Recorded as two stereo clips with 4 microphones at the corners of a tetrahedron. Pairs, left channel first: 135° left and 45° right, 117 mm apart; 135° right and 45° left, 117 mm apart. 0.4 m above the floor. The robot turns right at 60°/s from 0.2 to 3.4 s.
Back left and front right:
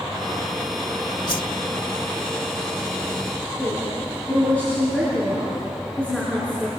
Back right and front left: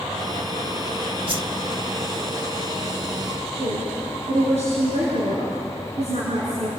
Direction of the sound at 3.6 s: 55° left.